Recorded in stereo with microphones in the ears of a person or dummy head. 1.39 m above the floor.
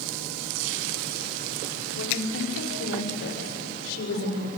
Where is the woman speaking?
80° left, 4.5 m; by 4.5 s 65° left (ahead or behind), 6 m.